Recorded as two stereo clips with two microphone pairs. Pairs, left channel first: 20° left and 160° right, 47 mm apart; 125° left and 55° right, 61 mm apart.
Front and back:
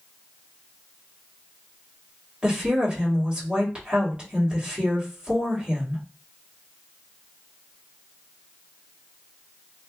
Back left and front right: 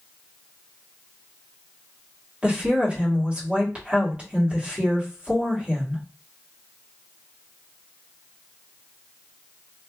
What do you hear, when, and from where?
2.4 s a woman speaking: 105° right, 1.4 m